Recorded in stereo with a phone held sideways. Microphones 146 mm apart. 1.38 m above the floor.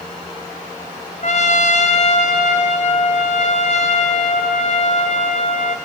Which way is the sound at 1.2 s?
60° left (ahead or behind).